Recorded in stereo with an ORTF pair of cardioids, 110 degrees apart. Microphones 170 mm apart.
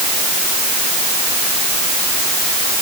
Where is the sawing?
I don't hear sawing.